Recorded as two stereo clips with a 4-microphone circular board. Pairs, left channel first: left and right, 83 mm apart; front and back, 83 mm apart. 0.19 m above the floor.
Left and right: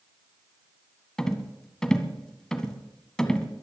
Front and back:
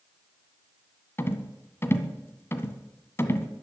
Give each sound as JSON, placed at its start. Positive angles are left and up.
{"t": 1.2, "sound": "a rattle", "azimuth_deg": 15, "distance_m": 1.6}